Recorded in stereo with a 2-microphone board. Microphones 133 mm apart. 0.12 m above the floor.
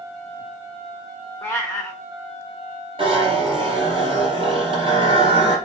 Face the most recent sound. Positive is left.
turn(degrees=-40)  # may be behind; listen again after turning